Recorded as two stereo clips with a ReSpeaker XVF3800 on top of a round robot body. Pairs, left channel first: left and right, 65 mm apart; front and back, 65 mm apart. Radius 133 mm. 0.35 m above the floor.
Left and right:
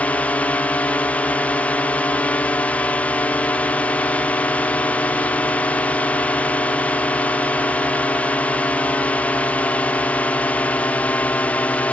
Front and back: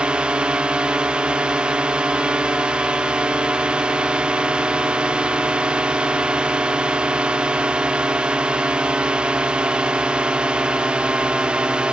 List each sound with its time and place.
0.0 s a drone: 125° left